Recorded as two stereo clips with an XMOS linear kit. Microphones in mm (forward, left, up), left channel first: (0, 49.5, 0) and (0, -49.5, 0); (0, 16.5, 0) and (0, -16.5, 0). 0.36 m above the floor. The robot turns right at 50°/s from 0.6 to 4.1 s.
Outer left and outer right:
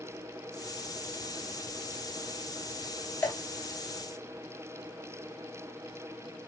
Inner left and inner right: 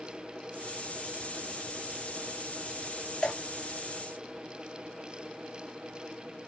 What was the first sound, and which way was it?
Dripping, 25° left (ahead or behind).